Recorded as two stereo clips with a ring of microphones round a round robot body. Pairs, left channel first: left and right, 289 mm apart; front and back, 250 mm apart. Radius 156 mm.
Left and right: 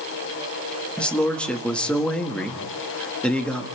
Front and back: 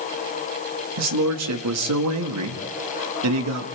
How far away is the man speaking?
About 1.9 m.